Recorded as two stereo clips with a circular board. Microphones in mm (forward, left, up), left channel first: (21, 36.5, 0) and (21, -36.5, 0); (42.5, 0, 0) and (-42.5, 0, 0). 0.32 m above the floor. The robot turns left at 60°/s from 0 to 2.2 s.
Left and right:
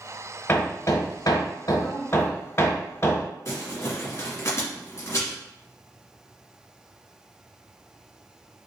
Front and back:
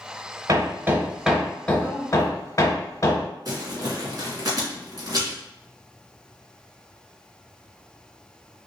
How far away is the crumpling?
About 1.8 m.